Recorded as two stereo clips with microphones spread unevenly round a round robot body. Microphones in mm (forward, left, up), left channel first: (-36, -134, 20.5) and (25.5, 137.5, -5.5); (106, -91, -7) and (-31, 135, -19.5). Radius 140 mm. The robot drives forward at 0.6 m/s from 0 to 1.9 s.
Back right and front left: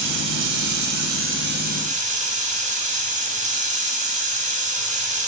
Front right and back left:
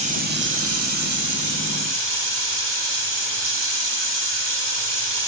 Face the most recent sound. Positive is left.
turn(degrees=140)